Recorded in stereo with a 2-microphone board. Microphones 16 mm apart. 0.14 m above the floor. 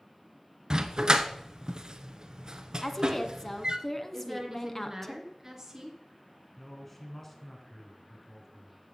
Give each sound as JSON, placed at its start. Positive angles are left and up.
{"t": 0.7, "sound": "a dog barking", "side_deg": -50, "distance_m": 0.9}
{"t": 2.8, "sound": "a woman speaking", "side_deg": 20, "distance_m": 1.1}
{"t": 4.1, "sound": "a woman speaking", "side_deg": -30, "distance_m": 2.5}
{"t": 6.6, "sound": "a man speaking", "side_deg": 15, "distance_m": 1.8}